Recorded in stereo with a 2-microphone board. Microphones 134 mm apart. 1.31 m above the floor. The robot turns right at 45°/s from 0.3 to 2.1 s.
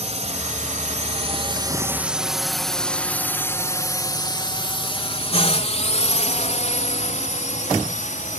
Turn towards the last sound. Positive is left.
turn(degrees=70)  # may be behind; listen again after turning